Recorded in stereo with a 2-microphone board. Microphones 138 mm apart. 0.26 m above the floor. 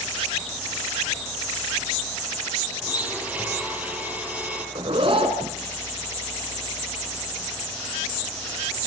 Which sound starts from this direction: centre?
A blender, at 2.8 s.